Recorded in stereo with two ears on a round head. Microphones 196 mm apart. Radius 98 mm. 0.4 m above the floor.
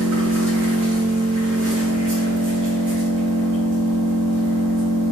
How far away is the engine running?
About 1.5 m.